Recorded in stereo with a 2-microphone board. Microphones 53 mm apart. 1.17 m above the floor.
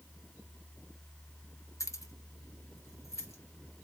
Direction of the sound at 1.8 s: 85° left.